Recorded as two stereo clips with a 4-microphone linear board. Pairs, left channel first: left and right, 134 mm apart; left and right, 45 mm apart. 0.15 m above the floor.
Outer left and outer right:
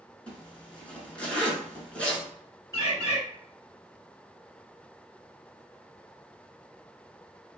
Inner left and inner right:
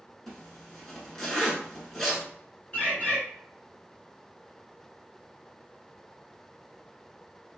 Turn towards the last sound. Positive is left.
turn(degrees=25)  # may be behind; listen again after turning